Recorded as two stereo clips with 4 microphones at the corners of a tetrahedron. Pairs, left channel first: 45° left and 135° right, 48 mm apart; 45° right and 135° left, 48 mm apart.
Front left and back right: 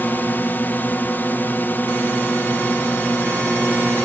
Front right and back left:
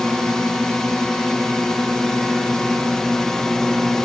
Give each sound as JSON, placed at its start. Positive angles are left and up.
{"t": 0.0, "sound": "a drone", "azimuth_deg": 30}